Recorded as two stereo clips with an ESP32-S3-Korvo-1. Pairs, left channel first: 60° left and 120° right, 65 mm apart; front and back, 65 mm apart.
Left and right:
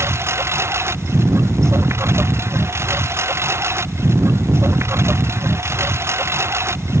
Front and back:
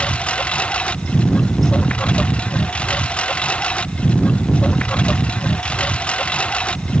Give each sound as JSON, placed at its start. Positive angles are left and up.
{"t": 0.0, "sound": "a lawn mower", "azimuth_deg": -75}